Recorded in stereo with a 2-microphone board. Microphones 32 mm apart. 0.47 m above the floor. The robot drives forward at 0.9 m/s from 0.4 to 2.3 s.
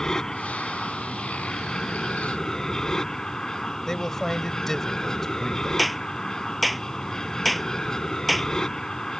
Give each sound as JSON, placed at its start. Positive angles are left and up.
{"t": 0.0, "sound": "an aircraft", "side_deg": 15}
{"t": 3.9, "sound": "a man speaking", "side_deg": 15}
{"t": 5.8, "sound": "a clap", "side_deg": 0}